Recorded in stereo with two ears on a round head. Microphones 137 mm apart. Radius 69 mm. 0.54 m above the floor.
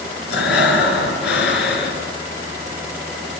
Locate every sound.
0.3 s breathing: 90° left, 3.5 m